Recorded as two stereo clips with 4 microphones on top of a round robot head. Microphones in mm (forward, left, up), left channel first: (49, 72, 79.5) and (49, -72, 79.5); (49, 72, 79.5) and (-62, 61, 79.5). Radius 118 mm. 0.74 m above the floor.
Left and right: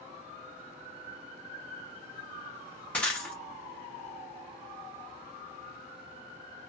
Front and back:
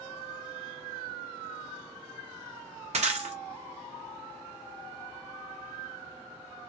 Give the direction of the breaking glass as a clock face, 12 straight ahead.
6 o'clock.